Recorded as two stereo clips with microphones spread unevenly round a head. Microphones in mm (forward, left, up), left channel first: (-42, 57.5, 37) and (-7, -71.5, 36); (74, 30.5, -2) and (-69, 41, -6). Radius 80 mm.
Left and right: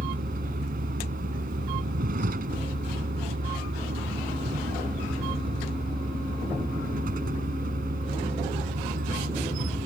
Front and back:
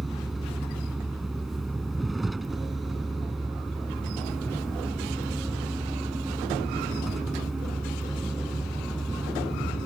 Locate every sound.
0.0 s a vehicle: 95° right